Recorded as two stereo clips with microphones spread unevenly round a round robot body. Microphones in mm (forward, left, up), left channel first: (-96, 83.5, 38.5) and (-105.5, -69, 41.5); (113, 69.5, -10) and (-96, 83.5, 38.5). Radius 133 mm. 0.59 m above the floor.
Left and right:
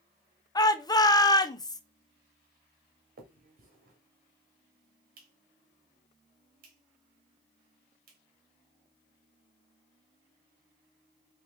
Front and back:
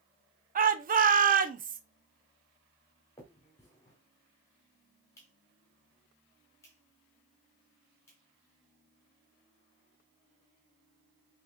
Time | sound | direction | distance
0.6 | a shout | 135° left | 0.6 m
3.2 | a finger snap | 75° right | 1.0 m